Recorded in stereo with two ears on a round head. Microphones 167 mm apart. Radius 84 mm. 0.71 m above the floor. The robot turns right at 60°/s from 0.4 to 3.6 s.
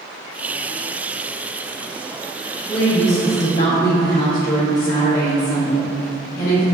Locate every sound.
2.7 s a woman speaking: 20° left, 1.0 m; by 6.6 s 80° left, 1.0 m